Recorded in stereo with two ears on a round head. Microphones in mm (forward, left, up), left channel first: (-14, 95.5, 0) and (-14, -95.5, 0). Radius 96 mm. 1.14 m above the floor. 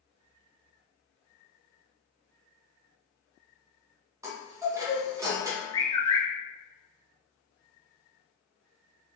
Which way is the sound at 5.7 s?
20° left (ahead or behind).